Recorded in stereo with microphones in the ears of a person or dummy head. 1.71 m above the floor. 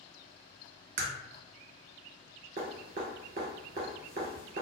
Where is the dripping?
30° right (ahead or behind), 1.4 m.